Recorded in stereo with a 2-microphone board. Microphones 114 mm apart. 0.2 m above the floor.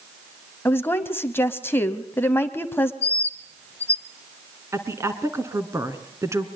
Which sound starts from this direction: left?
A bird, at 3.0 s.